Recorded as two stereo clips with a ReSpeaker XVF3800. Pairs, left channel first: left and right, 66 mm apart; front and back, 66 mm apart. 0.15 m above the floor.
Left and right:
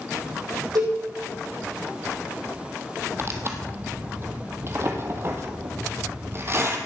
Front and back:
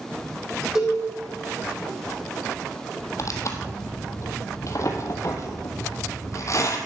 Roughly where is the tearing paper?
Ahead right.